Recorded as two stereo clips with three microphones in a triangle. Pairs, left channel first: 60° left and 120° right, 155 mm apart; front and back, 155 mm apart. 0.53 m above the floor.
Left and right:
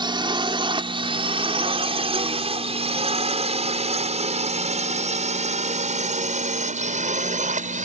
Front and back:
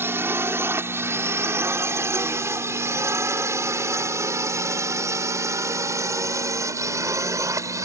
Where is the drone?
120° right; by 7.9 s 115° right.